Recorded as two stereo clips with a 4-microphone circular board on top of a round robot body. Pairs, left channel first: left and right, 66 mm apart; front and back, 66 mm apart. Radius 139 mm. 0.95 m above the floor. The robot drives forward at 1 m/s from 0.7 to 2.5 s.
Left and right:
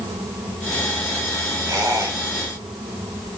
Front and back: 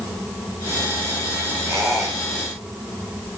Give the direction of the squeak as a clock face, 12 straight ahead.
4 o'clock.